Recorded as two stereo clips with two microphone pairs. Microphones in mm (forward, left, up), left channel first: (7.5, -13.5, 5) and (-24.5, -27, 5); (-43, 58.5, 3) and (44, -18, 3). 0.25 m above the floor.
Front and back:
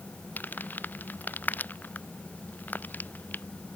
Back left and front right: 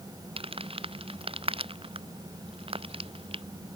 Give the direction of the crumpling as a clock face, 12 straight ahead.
12 o'clock.